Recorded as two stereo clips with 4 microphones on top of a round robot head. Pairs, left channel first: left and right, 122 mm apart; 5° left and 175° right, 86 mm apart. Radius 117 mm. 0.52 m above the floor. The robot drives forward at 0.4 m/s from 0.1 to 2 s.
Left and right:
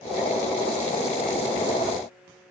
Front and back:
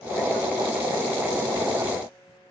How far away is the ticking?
No ticking in this recording.